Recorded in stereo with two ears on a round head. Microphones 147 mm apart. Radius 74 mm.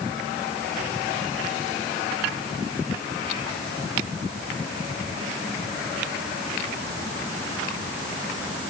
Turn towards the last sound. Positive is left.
No sound to turn to.